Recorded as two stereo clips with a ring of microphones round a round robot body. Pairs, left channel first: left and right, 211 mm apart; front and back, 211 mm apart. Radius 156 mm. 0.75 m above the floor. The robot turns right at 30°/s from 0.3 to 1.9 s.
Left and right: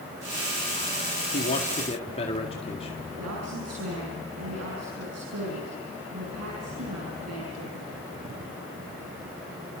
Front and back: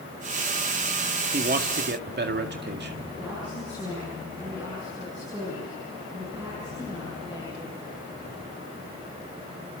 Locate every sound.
1.3 s a man speaking: 135° left, 1.9 m; by 3.0 s 155° left, 1.9 m
3.2 s a woman speaking: 100° right, 7.5 m